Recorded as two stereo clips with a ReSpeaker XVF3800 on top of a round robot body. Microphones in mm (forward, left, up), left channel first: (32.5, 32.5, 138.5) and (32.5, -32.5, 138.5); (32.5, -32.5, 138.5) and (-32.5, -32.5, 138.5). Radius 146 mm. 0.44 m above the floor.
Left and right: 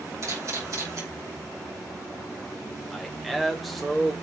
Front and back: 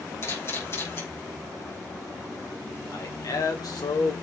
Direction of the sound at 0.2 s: 50° right.